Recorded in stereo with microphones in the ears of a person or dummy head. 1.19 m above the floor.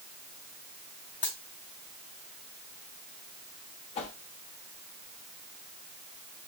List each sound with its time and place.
1.2 s a dropped coin: 10° left (ahead or behind), 1.1 m
4.0 s a whoosh: 35° left (ahead or behind), 0.7 m